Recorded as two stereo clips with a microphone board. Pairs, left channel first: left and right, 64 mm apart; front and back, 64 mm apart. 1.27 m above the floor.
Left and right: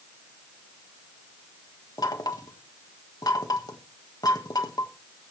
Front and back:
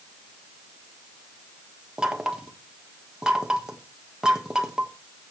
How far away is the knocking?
About 1.4 m.